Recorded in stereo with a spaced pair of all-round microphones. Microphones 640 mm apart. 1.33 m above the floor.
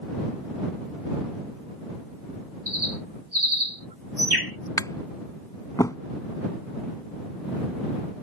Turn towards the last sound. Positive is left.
turn(degrees=5)  # may be behind; listen again after turning